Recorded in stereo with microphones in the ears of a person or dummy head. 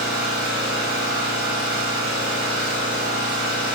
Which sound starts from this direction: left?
An engine running, at 0.0 s.